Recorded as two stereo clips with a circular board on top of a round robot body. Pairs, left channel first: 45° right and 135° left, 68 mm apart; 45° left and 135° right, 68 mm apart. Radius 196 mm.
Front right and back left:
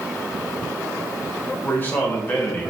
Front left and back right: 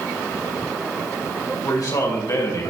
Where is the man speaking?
15° left, 6 m; by 2.7 s 20° left, 5 m.